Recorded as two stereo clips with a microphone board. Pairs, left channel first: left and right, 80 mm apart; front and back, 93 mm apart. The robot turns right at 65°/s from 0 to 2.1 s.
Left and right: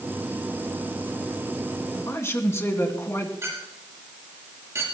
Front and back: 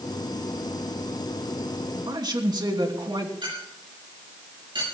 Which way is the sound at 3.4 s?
145° right.